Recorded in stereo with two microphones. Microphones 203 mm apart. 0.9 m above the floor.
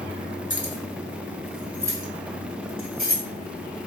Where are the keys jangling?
40° left (ahead or behind), 1.5 m; by 3.2 s 50° right (ahead or behind), 2 m.